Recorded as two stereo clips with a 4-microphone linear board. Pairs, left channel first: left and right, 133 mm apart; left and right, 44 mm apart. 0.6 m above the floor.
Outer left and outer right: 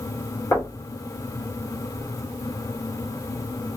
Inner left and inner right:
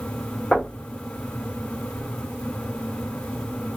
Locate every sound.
0.5 s knocking: 25° left (ahead or behind), 1.5 m